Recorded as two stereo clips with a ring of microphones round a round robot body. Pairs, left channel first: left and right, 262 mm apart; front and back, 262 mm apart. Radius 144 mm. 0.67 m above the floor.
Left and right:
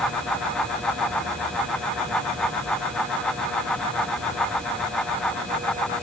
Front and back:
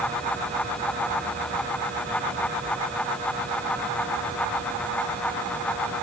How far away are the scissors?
I don't hear scissors.